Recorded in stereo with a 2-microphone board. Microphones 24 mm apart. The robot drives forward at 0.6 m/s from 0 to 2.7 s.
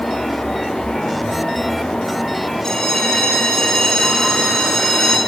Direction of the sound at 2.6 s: 25° left (ahead or behind).